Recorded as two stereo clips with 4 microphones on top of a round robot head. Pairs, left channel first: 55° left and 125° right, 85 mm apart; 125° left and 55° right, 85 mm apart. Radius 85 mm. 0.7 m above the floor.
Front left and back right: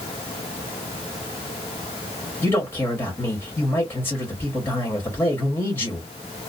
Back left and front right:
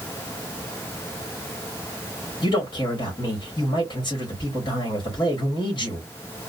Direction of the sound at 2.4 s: 105° left.